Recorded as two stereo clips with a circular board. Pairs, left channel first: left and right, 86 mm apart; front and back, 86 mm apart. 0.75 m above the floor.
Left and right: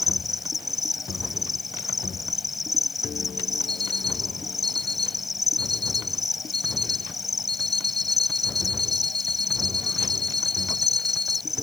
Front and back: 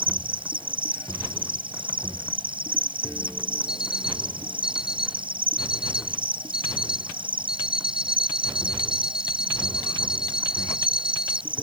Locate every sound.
0.0 s an insect: straight behind
3.7 s an alarm clock: 95° left